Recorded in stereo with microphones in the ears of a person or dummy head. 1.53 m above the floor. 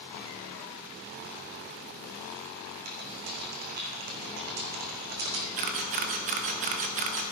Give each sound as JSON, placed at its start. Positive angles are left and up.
{"t": 2.9, "sound": "typing on a keyboard", "side_deg": -50, "distance_m": 2.5}
{"t": 5.6, "sound": "a camera shutter", "side_deg": -45, "distance_m": 0.9}